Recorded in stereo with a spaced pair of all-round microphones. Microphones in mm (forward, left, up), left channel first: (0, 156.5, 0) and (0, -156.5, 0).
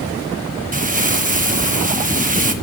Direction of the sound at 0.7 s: 25° right (ahead or behind).